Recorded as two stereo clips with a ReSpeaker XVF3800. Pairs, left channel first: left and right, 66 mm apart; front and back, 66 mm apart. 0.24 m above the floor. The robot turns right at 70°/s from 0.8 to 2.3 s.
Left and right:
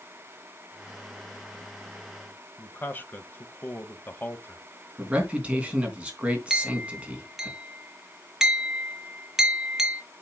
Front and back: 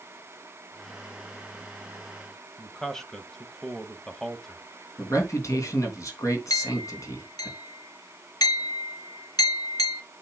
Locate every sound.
2.6 s a man speaking: 80° left, 1.0 m
5.0 s a man speaking: 25° right, 3 m
6.5 s a clink: 10° right, 3 m